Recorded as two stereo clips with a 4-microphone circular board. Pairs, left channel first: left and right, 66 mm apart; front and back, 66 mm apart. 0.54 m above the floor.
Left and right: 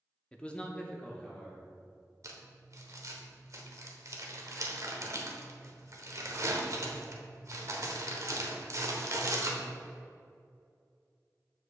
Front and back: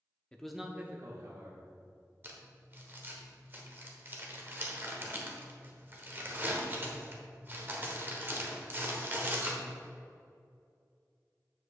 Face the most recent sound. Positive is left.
turn(degrees=-125)